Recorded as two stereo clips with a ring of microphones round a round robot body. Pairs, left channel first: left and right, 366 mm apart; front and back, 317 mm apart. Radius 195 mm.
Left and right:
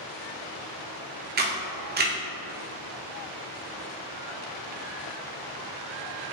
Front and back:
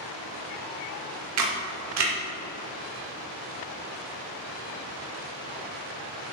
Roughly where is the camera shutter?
Behind right.